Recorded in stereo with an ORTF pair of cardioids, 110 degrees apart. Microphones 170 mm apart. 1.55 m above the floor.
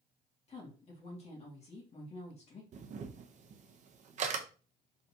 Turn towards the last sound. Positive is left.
turn(degrees=-45)